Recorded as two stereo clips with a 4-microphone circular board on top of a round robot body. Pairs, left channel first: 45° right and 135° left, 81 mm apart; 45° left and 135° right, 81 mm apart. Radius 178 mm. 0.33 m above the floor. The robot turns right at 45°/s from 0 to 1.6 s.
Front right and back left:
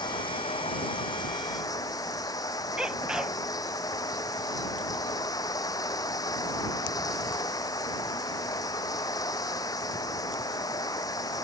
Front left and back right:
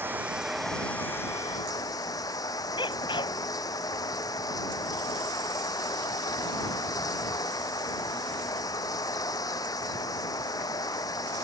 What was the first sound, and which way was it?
Running water, 70° right.